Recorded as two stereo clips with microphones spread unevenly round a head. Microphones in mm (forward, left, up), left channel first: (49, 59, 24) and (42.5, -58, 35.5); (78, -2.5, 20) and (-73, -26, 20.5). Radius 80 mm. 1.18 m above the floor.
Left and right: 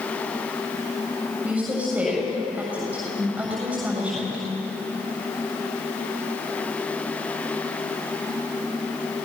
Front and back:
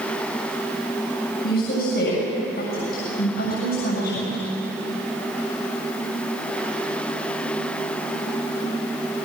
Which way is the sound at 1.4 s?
15° right.